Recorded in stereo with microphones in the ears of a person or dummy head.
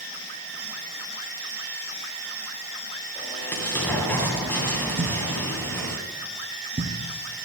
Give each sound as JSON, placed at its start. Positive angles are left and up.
{"t": 3.1, "sound": "an explosion", "side_deg": 15, "distance_m": 2.5}
{"t": 5.0, "sound": "a thud", "side_deg": -25, "distance_m": 1.4}